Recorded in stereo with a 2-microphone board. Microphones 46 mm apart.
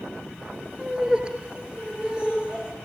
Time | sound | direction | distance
0.8 | laughter | 20° right (ahead or behind) | 3 m